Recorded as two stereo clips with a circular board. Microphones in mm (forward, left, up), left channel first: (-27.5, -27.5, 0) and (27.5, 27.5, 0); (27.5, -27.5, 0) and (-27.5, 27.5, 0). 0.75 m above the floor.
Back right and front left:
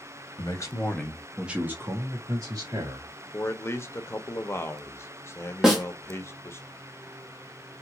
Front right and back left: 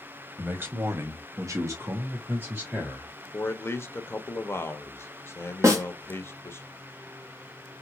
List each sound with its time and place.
0.4 s a man speaking: 160° right, 1.1 m; by 3.1 s 75° left, 2.0 m
3.3 s a man speaking: 90° right, 0.7 m
5.6 s a snare drum: 130° left, 1.0 m